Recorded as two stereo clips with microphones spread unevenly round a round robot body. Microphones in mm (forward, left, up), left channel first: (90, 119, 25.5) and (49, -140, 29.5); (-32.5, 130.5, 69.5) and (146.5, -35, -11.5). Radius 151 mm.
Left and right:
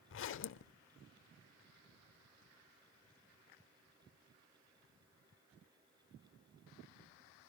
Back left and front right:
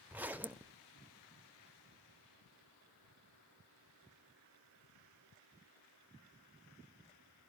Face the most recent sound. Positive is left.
turn(degrees=55)